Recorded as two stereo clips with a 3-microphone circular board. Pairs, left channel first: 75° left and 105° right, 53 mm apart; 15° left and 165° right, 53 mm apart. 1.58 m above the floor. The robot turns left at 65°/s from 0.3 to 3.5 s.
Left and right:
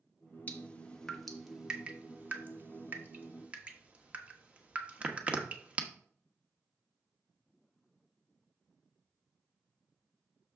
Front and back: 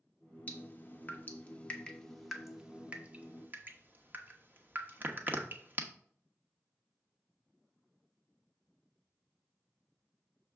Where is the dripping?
40° left, 1.0 m; by 5.8 s 155° right, 1.0 m.